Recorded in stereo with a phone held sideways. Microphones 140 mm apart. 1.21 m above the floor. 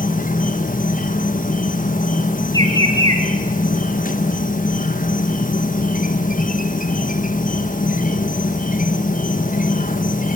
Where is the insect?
70° left (ahead or behind), 1.5 m.